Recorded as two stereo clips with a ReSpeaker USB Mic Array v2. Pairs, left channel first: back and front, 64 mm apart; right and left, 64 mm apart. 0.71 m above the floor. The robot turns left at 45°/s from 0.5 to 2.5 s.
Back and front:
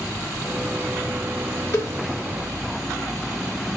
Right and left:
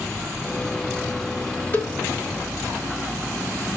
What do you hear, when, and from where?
1.7 s a cowbell: 145° right, 2 m; by 1.9 s 155° right, 2 m